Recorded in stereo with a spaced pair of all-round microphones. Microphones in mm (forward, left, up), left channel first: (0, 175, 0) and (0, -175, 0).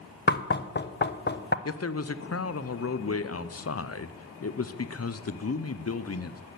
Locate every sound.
0.3 s knocking: 30° left (ahead or behind), 0.6 m
1.6 s a man speaking: 45° left (ahead or behind), 0.6 m